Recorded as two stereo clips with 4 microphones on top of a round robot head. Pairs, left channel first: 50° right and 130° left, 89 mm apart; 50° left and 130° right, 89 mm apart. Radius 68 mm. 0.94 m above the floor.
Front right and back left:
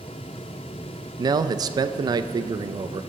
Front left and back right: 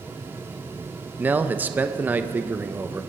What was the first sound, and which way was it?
A man speaking, 165° left.